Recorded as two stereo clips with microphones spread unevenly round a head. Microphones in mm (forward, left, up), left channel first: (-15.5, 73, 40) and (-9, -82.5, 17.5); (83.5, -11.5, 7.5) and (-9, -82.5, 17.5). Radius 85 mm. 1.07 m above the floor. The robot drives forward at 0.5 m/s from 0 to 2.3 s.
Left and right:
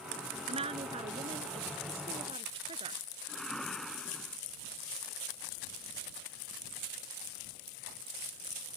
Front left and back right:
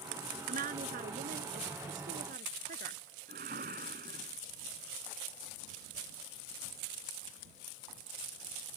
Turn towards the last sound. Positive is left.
turn(degrees=180)